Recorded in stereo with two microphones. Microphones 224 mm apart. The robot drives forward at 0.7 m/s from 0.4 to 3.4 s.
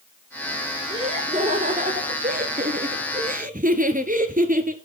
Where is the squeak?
I don't hear a squeak.